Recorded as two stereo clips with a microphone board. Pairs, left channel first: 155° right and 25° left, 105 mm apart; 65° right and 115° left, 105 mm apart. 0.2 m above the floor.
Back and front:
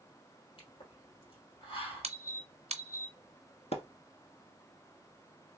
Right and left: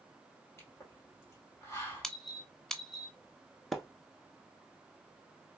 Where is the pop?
130° right, 2 m.